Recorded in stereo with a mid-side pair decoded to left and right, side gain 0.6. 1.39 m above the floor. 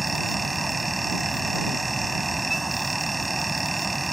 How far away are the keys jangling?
I don't hear keys jangling.